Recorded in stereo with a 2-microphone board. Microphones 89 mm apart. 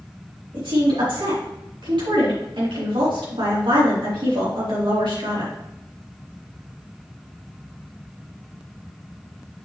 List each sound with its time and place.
0.5 s a woman speaking: 80° right, 4 m